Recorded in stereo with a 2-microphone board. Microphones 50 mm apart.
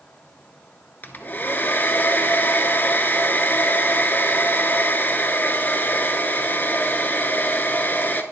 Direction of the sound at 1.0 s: 40° left (ahead or behind).